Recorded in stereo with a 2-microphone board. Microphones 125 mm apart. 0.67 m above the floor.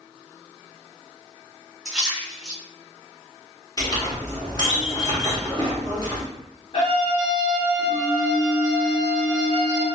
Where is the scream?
45° left (ahead or behind), 1.8 m.